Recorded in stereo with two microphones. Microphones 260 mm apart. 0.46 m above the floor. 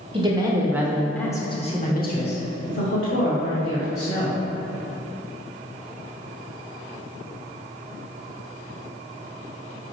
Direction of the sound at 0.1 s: 20° right (ahead or behind).